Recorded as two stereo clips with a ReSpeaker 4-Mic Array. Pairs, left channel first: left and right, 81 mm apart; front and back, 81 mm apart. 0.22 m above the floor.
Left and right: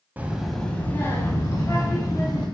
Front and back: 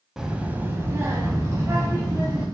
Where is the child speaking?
105° right, 0.5 m; by 2.5 s 130° left, 1.6 m.